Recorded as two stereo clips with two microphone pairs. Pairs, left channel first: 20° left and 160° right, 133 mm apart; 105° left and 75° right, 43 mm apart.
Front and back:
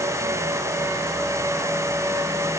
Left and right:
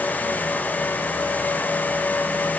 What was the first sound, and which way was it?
Only background noise.